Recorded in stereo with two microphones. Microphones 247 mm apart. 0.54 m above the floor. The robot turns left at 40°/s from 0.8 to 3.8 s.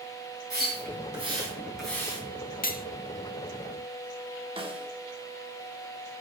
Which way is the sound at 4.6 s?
20° right (ahead or behind).